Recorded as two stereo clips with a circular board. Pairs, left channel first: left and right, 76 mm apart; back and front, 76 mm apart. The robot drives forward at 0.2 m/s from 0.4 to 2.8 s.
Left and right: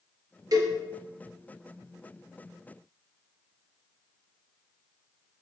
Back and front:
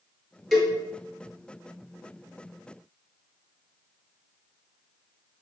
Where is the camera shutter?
No camera shutter in this recording.